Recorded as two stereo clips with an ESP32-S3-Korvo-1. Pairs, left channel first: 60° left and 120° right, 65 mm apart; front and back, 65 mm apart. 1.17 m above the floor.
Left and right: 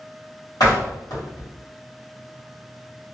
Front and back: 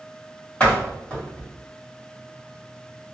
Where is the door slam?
70° left, 1.5 m.